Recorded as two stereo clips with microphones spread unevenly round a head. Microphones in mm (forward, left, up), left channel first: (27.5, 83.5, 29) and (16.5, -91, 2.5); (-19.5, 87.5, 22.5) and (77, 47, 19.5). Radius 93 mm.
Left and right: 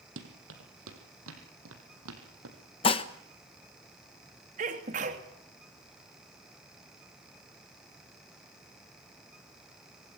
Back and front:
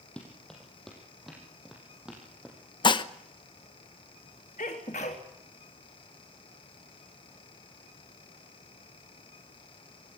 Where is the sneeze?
150° right, 3 m.